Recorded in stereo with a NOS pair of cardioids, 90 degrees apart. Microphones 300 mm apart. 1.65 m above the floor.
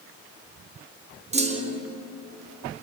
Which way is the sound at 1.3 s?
20° right.